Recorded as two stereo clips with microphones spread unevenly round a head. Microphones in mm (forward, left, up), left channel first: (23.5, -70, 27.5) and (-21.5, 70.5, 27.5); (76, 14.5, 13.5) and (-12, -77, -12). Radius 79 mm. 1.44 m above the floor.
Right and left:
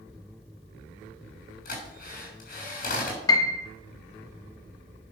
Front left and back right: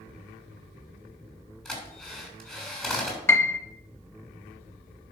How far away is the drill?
About 6.5 m.